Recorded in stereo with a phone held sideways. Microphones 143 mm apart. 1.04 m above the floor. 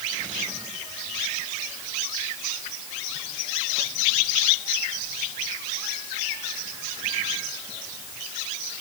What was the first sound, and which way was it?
Only background noise.